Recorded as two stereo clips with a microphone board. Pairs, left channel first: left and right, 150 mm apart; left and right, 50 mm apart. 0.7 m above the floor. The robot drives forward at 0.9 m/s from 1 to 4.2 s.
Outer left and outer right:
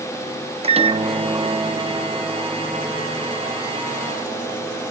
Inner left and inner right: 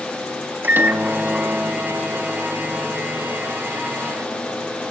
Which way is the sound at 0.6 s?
40° right (ahead or behind).